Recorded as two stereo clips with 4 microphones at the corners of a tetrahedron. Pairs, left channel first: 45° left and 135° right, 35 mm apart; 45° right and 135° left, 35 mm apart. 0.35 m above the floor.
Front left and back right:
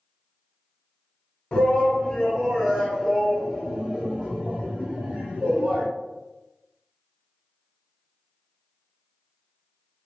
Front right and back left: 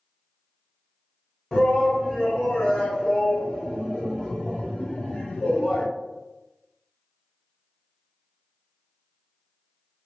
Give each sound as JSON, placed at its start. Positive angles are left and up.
{"t": 1.5, "sound": "a shout", "azimuth_deg": 35, "distance_m": 1.5}